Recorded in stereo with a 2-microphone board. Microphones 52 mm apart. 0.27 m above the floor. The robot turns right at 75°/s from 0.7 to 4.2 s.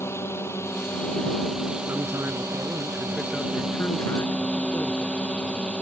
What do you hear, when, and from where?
0.0 s a drone: 125° left; by 5.8 s 25° left
1.9 s a man speaking: 80° right; by 5.2 s 90° left